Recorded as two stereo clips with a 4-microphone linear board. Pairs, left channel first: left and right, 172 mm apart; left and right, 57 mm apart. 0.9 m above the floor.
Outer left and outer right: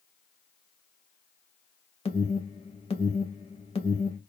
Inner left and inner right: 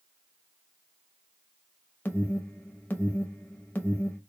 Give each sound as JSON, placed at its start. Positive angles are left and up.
{"t": 2.0, "sound": "an alarm", "side_deg": 35, "distance_m": 0.7}